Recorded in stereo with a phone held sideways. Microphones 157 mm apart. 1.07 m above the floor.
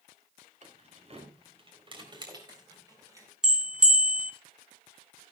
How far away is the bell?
About 1.3 m.